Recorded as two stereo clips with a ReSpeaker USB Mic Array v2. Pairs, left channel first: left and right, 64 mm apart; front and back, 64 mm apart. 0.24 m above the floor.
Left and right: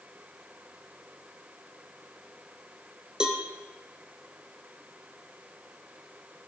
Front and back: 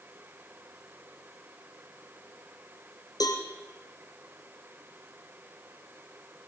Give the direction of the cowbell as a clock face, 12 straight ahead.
12 o'clock.